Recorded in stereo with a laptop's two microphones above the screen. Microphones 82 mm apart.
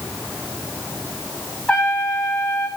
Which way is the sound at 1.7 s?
10° left (ahead or behind).